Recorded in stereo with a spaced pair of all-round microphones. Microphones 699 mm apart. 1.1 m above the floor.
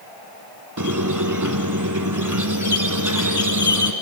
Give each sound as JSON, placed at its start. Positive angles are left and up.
{"t": 0.8, "sound": "a squeak", "side_deg": -25, "distance_m": 1.2}